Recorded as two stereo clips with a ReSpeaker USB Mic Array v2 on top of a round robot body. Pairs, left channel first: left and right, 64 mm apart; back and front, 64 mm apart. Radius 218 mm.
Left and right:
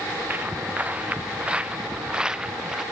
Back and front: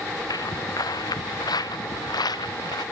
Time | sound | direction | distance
0.3 | footsteps | 155° right | ?